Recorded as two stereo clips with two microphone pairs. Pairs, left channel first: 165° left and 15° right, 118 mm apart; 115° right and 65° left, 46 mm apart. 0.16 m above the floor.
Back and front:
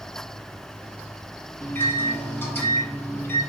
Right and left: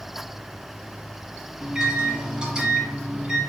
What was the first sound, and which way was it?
A microwave, 115° left.